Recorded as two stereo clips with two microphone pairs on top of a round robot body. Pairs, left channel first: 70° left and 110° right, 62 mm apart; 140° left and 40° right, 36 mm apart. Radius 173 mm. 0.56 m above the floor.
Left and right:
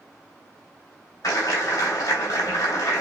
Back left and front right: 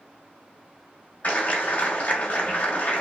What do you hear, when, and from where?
1.2 s a clap: 100° left, 3 m